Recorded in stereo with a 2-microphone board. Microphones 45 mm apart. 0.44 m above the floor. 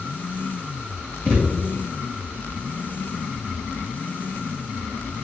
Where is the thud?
30° left (ahead or behind), 3 m.